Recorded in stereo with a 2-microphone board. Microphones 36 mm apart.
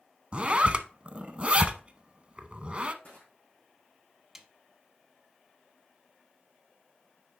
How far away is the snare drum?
About 0.8 m.